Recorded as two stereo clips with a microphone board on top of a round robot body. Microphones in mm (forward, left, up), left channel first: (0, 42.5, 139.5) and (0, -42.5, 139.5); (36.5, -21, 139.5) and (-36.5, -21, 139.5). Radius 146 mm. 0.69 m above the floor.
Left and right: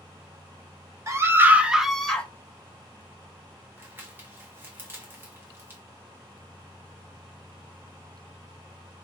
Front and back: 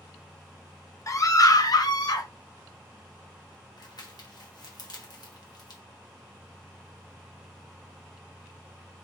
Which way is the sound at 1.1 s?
40° right.